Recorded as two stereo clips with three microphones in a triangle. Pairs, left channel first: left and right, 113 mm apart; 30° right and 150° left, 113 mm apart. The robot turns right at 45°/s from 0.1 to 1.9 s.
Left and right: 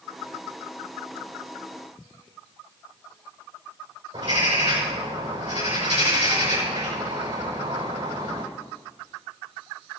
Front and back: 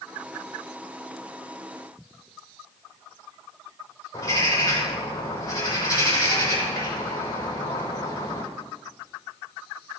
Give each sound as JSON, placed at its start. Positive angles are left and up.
{"t": 4.1, "sound": "a bird", "azimuth_deg": -85, "distance_m": 5.5}